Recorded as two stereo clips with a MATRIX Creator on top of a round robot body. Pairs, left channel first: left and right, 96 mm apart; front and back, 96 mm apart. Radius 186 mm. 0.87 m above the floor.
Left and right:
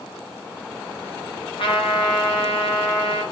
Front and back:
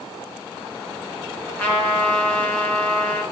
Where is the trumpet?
75° left, 2.5 m.